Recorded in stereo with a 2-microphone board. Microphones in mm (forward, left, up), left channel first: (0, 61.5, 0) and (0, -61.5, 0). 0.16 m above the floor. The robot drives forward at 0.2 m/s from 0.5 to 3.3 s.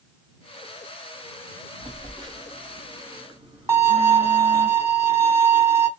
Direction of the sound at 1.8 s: 35° right (ahead or behind).